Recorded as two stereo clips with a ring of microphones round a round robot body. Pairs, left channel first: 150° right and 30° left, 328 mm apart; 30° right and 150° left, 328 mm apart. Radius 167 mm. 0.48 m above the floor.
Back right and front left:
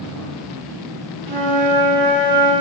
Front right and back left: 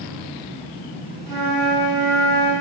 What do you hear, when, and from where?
1.3 s a flute: 60° left, 3 m